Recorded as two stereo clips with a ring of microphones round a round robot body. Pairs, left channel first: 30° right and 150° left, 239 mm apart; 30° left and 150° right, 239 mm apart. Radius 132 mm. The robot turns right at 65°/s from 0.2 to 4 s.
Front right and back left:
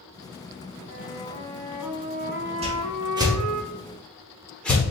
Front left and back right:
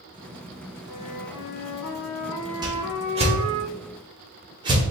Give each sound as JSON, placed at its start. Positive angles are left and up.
{"t": 0.9, "sound": "a flute", "azimuth_deg": 5, "distance_m": 0.7}
{"t": 2.6, "sound": "a whoosh", "azimuth_deg": 160, "distance_m": 1.2}